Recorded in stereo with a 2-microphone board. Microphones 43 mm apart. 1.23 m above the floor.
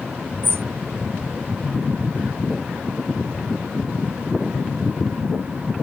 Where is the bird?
65° right (ahead or behind).